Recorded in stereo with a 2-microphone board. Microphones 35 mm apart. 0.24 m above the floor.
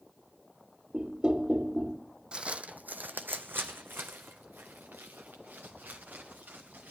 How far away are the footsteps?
About 0.7 m.